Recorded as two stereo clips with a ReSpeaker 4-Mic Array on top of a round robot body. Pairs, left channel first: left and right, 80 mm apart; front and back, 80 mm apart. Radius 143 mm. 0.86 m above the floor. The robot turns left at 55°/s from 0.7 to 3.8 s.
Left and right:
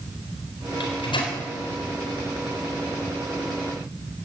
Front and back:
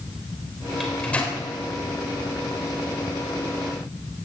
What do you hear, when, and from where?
0.8 s a microwave: 95° left, 4.5 m; by 1.4 s 60° left, 4.5 m